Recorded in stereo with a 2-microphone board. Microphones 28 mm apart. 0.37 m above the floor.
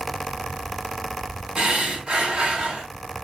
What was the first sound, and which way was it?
Breathing, 40° right (ahead or behind).